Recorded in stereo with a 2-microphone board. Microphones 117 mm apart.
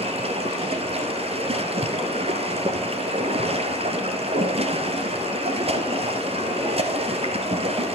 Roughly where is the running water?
Right.